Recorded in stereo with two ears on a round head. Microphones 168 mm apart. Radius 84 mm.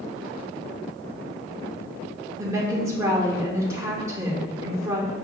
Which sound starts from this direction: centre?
A woman speaking, at 2.4 s.